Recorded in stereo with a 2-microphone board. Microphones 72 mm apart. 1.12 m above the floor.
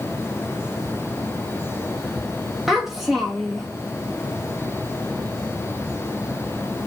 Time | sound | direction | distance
2.7 | a child speaking | 5° right (ahead or behind) | 0.6 m